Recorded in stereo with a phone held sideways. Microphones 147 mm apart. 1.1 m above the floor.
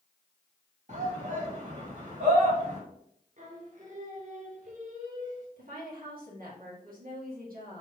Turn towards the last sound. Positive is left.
turn(degrees=-70)  # may be behind; listen again after turning